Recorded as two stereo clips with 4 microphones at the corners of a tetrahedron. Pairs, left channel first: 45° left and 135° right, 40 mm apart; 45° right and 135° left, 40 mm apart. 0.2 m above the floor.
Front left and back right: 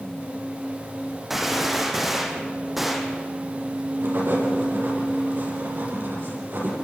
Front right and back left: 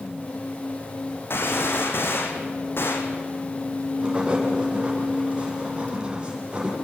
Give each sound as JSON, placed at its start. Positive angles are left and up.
{"t": 1.3, "sound": "a gunshot", "azimuth_deg": -50, "distance_m": 3.0}
{"t": 4.0, "sound": "writing", "azimuth_deg": -160, "distance_m": 7.0}